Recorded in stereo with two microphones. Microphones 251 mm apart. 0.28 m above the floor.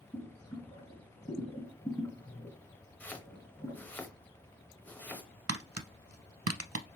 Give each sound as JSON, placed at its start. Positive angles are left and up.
{"t": 0.1, "sound": "boiling", "side_deg": 10, "distance_m": 3.5}
{"t": 3.0, "sound": "chopping", "side_deg": 5, "distance_m": 0.9}
{"t": 5.5, "sound": "tapping", "side_deg": -75, "distance_m": 0.6}